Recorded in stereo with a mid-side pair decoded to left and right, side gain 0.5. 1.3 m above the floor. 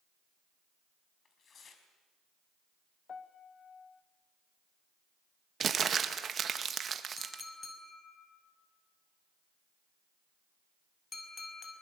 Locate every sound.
1.2 s tearing paper: 45° left, 4.5 m
3.1 s a piano: 40° left, 1.5 m
5.6 s crumpling: 45° right, 1.8 m
7.2 s a clink: 35° left, 6 m